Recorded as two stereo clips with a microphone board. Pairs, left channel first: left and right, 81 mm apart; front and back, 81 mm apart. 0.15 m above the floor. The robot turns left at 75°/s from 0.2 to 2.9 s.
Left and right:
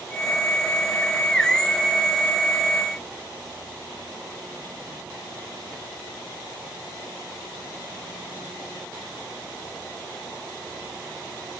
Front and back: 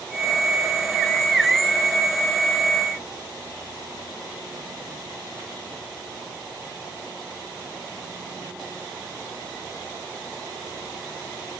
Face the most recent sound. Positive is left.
No sound to turn to.